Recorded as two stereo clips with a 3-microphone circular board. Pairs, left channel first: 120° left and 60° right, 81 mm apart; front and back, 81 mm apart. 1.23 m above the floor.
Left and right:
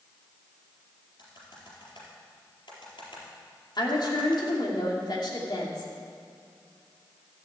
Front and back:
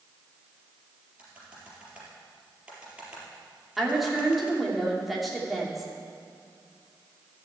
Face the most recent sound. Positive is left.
turn(degrees=90)